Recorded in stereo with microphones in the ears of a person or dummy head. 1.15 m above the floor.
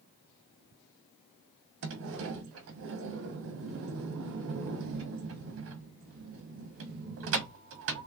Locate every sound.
1.8 s a sliding door: 60° right (ahead or behind), 0.8 m